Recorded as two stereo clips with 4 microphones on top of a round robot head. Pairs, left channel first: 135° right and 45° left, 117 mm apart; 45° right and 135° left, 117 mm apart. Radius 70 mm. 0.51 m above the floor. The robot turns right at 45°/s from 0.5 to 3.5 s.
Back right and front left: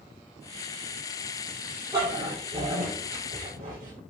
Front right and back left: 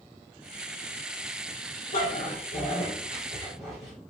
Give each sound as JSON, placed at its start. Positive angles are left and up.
{"t": 1.9, "sound": "a dog barking", "azimuth_deg": -25, "distance_m": 6.0}